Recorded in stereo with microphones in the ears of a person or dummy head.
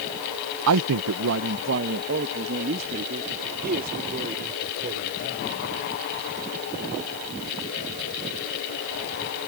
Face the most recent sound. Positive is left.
turn(degrees=-40)  # may be behind; listen again after turning